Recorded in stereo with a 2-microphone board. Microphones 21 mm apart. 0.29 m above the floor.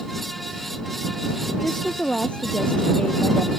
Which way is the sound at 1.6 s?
65° left (ahead or behind).